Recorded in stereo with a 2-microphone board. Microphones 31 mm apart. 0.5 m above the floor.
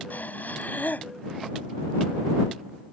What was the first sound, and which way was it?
Breathing, 75° left (ahead or behind).